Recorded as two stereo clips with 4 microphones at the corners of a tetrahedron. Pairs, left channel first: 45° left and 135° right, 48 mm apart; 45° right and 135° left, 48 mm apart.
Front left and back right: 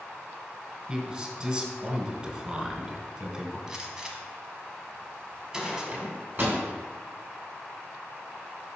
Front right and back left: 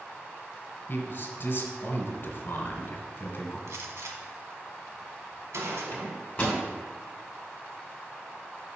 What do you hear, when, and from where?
0.9 s a man speaking: 75° right, 1.6 m
3.7 s a gunshot: 150° left, 1.1 m
5.9 s a microwave: 105° right, 2 m